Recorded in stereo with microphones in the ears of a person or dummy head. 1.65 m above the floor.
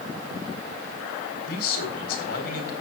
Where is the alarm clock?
No alarm clock in this recording.